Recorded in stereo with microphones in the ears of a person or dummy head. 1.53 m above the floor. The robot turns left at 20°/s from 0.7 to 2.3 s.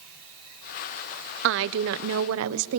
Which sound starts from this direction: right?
A woman speaking, at 1.4 s.